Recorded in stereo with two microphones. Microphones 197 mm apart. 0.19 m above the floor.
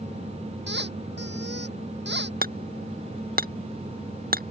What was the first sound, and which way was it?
A squeak, 65° right (ahead or behind).